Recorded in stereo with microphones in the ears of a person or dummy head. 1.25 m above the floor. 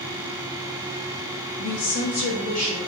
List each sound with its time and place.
1.6 s a woman speaking: 80° left, 0.7 m; by 2.8 s 35° left (ahead or behind), 1.2 m